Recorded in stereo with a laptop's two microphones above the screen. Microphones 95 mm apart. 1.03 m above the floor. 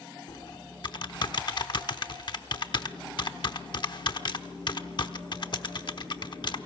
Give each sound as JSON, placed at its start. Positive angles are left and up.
{"t": 0.3, "sound": "typing on a keyboard", "side_deg": 55, "distance_m": 0.9}